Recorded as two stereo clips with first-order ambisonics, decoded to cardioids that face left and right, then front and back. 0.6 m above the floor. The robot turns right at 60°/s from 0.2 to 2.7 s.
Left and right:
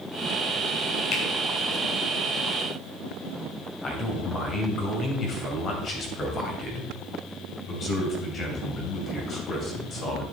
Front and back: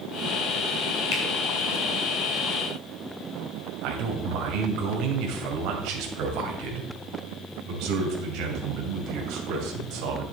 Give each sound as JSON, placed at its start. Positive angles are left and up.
{"t": 1.1, "sound": "a finger snap", "azimuth_deg": 40, "distance_m": 2.5}
{"t": 3.8, "sound": "a man speaking", "azimuth_deg": 150, "distance_m": 2.5}